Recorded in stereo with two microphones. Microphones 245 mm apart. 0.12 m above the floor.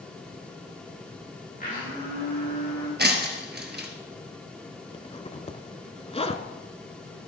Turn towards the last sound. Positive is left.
turn(degrees=25)  # may be behind; listen again after turning